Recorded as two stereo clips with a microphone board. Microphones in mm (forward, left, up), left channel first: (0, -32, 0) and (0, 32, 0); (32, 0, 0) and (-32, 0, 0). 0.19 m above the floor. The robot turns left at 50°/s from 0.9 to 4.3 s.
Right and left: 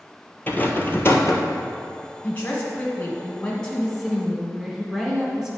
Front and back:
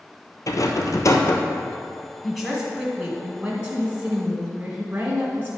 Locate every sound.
0.5 s a rattle: 30° right, 0.9 m; by 1.6 s 65° right, 0.9 m
2.2 s a woman speaking: 85° right, 1.1 m; by 5.6 s 170° left, 1.1 m